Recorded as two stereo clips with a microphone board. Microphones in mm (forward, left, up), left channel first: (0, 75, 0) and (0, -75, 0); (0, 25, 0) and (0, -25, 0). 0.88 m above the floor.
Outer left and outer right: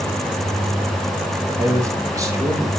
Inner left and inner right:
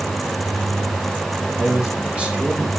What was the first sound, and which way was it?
A man speaking, 20° right (ahead or behind).